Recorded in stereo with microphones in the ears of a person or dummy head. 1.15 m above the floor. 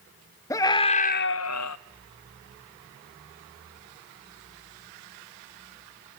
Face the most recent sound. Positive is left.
turn(degrees=75)  # may be behind; listen again after turning